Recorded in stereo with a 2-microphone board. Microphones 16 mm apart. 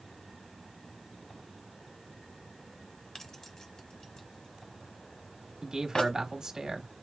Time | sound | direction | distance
3.1 | keys jangling | 35° left (ahead or behind) | 1.1 m
5.6 | a man speaking | 45° right (ahead or behind) | 1.4 m